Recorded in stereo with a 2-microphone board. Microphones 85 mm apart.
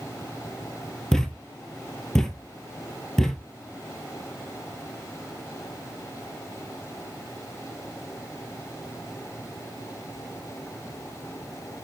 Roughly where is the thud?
Centre.